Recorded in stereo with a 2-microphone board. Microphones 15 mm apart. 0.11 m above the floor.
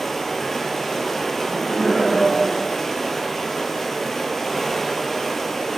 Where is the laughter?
20° left (ahead or behind), 1.7 m.